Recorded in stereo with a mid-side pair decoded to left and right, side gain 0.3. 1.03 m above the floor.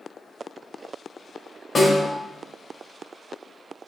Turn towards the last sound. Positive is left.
turn(degrees=50)